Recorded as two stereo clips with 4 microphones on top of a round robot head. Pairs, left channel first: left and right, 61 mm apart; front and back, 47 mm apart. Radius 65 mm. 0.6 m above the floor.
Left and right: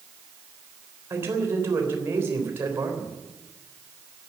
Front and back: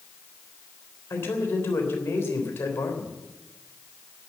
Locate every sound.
1.1 s a man speaking: 40° right, 3.5 m